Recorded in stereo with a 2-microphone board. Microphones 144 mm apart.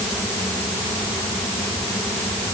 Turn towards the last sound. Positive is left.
No sound to turn to.